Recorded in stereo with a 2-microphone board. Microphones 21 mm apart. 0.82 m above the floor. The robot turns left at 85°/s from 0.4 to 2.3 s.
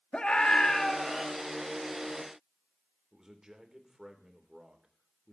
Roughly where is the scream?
Ahead left.